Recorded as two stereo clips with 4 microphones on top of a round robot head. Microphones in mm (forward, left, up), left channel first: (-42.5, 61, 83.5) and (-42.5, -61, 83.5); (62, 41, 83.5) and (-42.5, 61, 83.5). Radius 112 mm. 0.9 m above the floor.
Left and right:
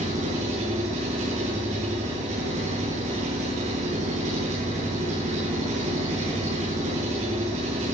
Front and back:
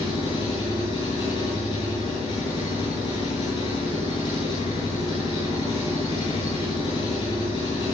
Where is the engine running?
60° right, 10 m.